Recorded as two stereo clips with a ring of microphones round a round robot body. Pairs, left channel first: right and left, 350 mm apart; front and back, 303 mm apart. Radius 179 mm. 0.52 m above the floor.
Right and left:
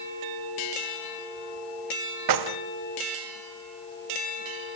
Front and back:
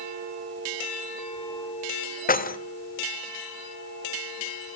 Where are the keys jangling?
60° left, 1.4 m.